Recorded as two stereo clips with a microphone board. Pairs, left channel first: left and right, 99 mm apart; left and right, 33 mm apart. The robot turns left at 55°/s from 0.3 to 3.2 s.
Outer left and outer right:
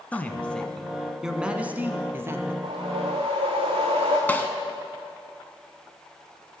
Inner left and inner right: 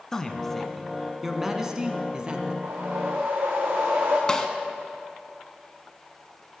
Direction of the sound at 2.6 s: 75° right.